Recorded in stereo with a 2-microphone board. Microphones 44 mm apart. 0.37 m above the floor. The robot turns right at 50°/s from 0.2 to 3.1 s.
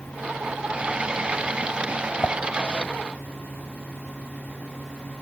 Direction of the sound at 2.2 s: 50° left (ahead or behind).